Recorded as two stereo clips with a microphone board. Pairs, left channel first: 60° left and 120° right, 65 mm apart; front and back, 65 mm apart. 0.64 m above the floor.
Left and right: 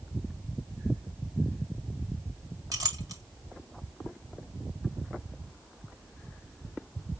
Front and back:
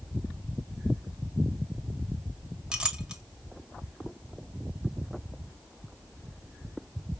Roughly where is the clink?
Right.